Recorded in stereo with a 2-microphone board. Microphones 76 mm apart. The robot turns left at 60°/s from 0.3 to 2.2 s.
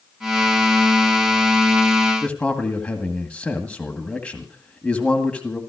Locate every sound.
2.2 s a man speaking: 15° left (ahead or behind), 2 m